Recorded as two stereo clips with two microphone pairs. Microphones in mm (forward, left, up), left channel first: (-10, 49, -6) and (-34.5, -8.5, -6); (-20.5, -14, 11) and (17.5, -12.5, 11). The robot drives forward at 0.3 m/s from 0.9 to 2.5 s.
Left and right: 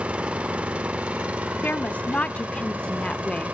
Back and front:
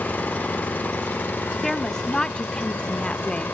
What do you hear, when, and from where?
0.0 s an engine running: straight behind, 0.8 m
1.6 s a woman speaking: 110° left, 0.8 m; by 3.5 s 135° left, 0.9 m